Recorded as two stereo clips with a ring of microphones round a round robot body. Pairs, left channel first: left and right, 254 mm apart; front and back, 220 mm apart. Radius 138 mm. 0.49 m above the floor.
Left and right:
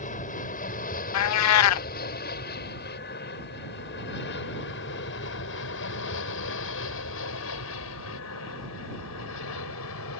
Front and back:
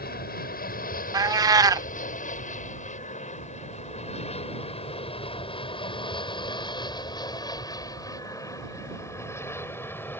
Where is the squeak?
No squeak in this recording.